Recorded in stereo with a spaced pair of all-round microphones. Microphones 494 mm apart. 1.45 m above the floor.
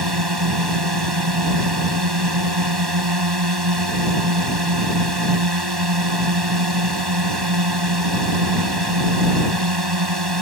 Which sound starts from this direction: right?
A drone, at 0.0 s.